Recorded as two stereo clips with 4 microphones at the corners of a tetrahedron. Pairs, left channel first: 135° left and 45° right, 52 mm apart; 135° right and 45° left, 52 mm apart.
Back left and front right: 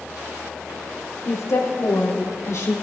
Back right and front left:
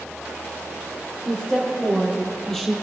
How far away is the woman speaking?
About 4.5 m.